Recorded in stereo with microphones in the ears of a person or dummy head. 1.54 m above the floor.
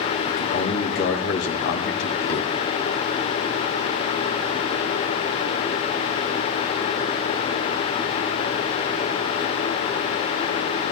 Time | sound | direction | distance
0.3 | a man speaking | 60° left (ahead or behind) | 2 m